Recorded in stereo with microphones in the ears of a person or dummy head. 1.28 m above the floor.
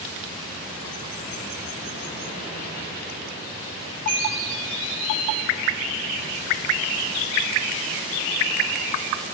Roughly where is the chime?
Right.